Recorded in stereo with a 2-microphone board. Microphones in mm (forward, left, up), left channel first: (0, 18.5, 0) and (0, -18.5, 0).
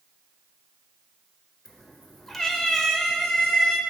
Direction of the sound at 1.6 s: 10° left (ahead or behind).